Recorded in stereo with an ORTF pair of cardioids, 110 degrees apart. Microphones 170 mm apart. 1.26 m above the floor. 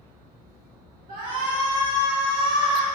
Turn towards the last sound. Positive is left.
turn(degrees=-55)